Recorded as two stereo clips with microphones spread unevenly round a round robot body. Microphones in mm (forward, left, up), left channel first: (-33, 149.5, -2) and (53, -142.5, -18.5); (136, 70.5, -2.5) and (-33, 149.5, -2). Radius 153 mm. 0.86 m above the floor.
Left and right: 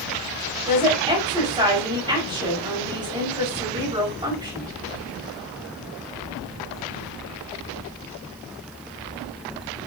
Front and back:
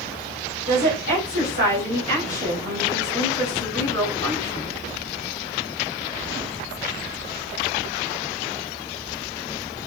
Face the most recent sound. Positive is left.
turn(degrees=-150)